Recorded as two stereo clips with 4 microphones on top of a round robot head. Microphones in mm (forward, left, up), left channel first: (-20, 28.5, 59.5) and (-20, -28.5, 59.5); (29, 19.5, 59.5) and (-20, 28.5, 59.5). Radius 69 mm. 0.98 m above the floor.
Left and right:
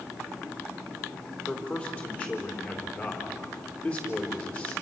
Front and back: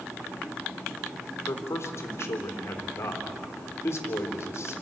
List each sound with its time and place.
1.5 s a man speaking: 20° left, 3.5 m